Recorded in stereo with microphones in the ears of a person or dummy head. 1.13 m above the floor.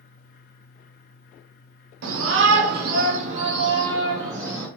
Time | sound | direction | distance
2.0 | a shout | 60° right (ahead or behind) | 0.8 m